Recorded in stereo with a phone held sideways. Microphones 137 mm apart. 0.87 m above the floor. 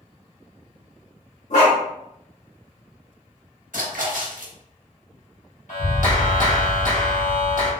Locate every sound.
1.5 s a dog barking: 65° left (ahead or behind), 1.4 m
3.7 s a splash: 80° right, 0.9 m
5.7 s a clap: 70° left (ahead or behind), 1.4 m